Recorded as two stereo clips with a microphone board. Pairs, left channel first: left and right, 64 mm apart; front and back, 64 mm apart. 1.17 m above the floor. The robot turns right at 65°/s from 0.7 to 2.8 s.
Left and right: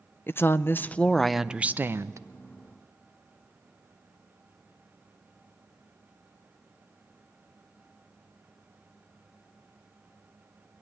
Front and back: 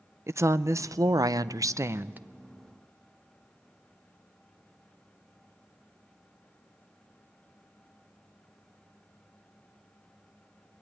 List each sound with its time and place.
0.3 s a woman speaking: 140° left, 0.5 m; by 2.2 s 120° right, 0.5 m